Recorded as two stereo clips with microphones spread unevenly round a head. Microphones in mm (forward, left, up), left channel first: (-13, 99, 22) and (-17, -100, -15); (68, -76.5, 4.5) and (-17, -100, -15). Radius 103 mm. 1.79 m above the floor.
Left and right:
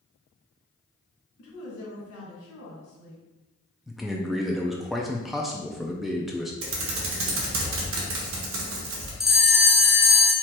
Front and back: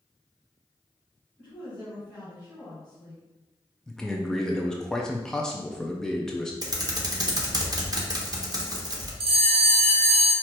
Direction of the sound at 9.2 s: 175° left.